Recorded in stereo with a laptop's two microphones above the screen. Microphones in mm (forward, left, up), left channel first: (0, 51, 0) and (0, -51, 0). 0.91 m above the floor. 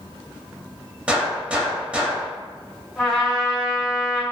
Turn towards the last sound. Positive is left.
turn(degrees=0)  # may be behind; listen again after turning